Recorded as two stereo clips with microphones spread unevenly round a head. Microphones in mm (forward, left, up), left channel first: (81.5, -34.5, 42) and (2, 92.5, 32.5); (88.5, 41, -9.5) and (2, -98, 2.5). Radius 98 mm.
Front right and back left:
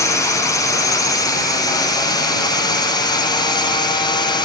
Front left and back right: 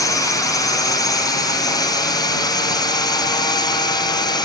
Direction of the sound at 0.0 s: 5° left.